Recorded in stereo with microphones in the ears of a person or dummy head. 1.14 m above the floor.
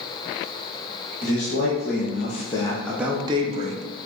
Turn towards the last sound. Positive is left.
turn(degrees=-40)  # may be behind; listen again after turning